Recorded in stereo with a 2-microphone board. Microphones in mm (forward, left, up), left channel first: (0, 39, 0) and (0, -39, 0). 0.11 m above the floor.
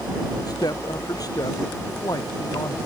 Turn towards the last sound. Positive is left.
turn(degrees=55)  # may be behind; listen again after turning